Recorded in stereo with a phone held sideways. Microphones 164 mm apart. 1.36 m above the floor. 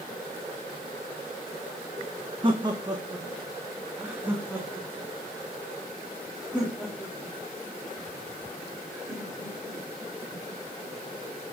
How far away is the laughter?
About 1.1 m.